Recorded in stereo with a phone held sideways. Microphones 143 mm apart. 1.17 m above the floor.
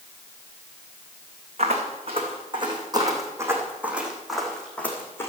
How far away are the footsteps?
About 4.5 m.